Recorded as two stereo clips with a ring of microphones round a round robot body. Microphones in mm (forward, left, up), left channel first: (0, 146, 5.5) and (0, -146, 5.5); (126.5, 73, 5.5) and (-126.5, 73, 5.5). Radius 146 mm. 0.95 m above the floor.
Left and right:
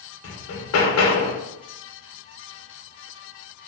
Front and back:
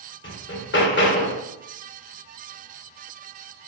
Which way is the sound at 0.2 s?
45° left.